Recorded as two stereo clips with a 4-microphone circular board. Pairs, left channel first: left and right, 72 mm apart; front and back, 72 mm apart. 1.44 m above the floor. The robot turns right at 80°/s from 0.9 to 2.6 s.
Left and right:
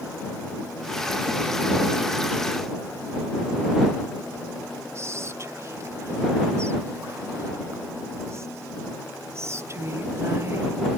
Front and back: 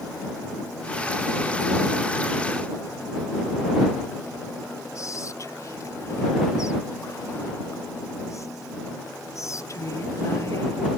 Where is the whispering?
40° right.